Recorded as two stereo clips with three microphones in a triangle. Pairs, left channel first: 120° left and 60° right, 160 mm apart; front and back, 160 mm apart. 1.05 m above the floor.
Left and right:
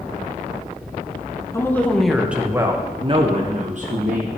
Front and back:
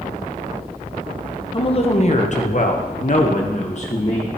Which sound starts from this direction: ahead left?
A woman speaking, at 1.5 s.